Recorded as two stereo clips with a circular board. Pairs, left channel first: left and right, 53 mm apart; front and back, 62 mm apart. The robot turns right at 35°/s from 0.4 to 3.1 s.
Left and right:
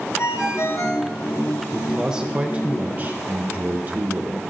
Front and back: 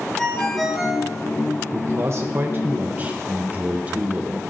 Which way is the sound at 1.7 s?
170° right.